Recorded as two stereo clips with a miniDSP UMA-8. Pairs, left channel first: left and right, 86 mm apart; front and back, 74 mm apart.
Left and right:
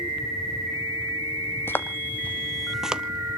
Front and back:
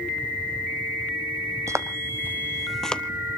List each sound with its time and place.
1.7 s footsteps: 150° left, 0.9 m; by 3.0 s 30° right, 0.6 m